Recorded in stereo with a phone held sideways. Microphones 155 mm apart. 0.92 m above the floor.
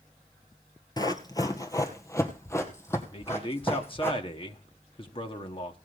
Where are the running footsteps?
25° left (ahead or behind), 1.1 m; by 4.1 s 15° left (ahead or behind), 3 m.